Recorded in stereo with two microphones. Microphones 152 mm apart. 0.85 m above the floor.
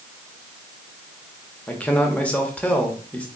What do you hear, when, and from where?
1.7 s a man speaking: 10° left (ahead or behind), 1.0 m